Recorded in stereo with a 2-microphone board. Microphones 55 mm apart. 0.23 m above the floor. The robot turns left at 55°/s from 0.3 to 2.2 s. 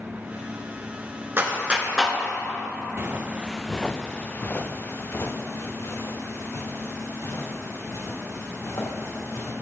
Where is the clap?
40° right (ahead or behind), 2 m; by 2.2 s 5° left (ahead or behind), 2 m.